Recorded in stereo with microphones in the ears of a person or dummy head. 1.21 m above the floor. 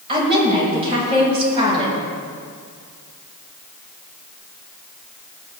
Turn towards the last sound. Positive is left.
turn(degrees=-30)  # may be behind; listen again after turning